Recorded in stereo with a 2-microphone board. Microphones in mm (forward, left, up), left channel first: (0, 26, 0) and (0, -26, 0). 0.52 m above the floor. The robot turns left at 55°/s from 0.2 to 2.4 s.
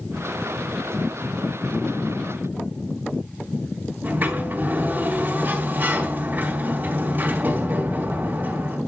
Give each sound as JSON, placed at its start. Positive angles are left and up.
{"t": 4.0, "sound": "a sliding door", "side_deg": -35, "distance_m": 4.0}